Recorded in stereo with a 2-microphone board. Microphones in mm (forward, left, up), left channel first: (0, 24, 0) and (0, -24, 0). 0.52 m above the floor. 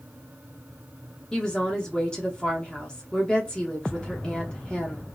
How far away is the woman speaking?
About 0.9 m.